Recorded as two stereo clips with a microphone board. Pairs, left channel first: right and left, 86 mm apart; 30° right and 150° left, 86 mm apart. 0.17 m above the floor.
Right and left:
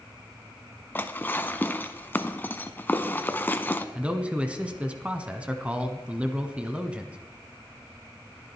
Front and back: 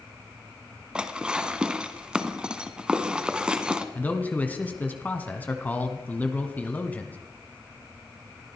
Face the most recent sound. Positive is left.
turn(degrees=25)